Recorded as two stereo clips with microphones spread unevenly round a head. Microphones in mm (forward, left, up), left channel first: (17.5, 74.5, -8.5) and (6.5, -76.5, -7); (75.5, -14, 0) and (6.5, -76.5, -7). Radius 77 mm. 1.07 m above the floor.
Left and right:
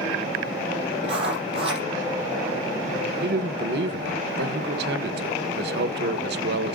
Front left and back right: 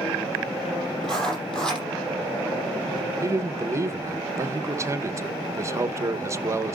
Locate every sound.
1.0 s writing: 40° right, 6.5 m
3.2 s a man speaking: 85° right, 0.9 m